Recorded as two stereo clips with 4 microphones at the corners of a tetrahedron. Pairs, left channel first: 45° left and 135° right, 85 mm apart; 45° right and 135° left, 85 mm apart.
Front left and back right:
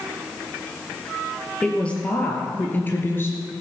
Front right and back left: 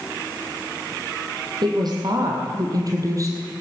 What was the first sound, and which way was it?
A woman speaking, 120° left.